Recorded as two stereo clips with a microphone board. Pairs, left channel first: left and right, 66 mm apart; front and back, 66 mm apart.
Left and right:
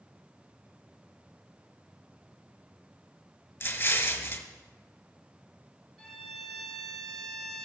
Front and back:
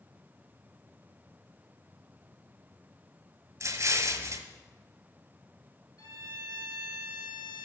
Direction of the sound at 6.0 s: Straight ahead.